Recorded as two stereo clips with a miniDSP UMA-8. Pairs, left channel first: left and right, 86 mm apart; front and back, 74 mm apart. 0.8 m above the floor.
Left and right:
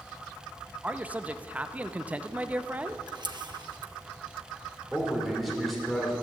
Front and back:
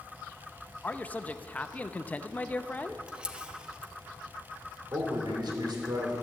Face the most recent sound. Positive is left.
turn(degrees=175)